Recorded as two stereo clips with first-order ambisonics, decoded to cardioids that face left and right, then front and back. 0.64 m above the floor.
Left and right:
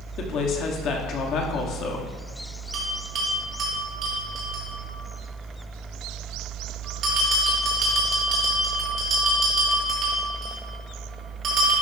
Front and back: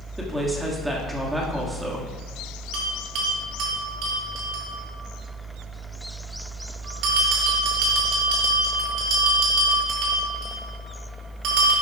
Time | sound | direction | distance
0.2 | a woman speaking | 100° left | 1.4 m
2.7 | a bell | 145° right | 4 m